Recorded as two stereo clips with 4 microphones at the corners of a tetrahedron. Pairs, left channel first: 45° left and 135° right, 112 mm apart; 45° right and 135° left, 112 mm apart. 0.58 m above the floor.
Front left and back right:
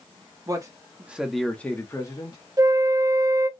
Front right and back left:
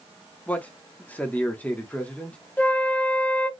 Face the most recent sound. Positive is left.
turn(degrees=-110)